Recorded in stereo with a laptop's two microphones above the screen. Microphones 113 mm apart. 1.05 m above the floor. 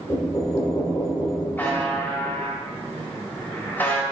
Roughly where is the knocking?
Left.